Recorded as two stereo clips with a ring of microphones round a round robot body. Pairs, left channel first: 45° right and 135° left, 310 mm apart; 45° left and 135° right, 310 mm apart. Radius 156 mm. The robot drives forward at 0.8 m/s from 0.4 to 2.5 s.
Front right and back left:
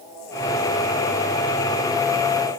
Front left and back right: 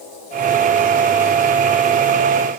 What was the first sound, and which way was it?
Only background noise.